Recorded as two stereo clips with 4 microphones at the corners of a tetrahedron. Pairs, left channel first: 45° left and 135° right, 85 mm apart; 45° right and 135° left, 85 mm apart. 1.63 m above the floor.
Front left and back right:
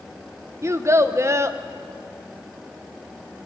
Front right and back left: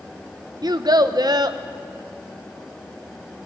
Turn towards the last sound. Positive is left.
turn(degrees=170)